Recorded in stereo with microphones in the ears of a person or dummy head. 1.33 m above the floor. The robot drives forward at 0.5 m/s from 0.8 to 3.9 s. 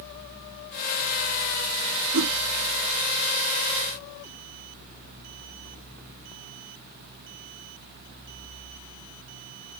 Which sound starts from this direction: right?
A whoosh, at 2.1 s.